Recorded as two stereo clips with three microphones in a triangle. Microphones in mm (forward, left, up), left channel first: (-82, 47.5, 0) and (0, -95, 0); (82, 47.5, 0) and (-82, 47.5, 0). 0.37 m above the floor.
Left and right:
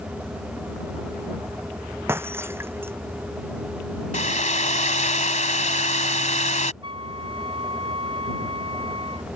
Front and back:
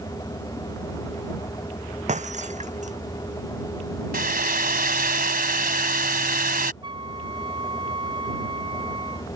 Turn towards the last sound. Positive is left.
turn(degrees=-120)